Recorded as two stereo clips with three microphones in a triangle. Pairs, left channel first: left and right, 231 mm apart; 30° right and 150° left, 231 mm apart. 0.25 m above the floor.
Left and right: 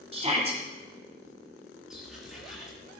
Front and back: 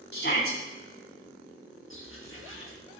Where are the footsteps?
Straight ahead, 5 m.